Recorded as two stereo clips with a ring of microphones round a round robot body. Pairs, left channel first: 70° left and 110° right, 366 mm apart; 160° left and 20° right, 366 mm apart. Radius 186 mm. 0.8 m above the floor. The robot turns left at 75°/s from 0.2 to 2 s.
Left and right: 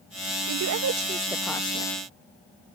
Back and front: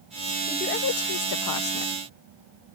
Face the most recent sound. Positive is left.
turn(degrees=115)